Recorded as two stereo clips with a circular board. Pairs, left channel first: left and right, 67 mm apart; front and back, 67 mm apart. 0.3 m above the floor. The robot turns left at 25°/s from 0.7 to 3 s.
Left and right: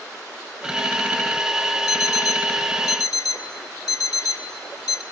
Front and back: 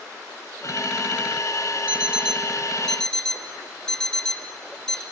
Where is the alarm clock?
110° left, 0.7 m; by 5.0 s 80° left, 0.7 m.